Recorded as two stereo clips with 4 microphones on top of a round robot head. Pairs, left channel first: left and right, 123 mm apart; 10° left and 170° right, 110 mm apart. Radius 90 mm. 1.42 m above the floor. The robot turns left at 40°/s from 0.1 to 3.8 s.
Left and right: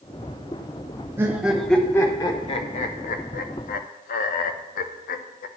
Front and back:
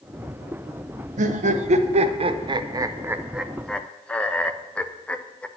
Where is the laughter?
165° right, 0.6 m; by 5.5 s 90° left, 0.6 m.